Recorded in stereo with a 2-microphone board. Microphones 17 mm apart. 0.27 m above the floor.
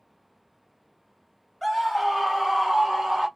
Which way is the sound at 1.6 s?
5° right (ahead or behind).